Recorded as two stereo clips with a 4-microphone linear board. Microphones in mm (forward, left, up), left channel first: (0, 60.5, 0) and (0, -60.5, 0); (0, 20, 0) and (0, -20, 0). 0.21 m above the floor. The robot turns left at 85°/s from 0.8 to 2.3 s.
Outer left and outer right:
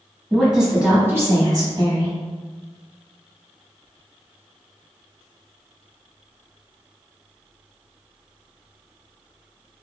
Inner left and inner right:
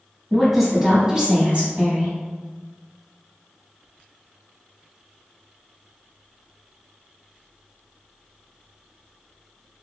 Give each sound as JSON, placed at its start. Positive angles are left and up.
{"t": 0.3, "sound": "a woman speaking", "azimuth_deg": -10, "distance_m": 1.1}